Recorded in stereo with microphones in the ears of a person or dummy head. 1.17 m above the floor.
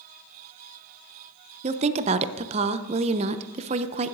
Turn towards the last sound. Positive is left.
turn(degrees=-30)  # may be behind; listen again after turning